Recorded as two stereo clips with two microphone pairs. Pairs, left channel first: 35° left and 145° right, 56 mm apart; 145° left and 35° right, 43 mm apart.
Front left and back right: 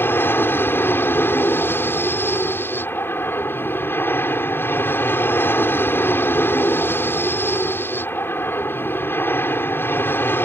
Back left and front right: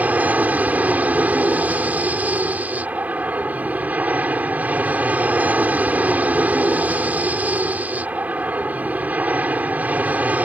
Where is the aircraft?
Straight ahead.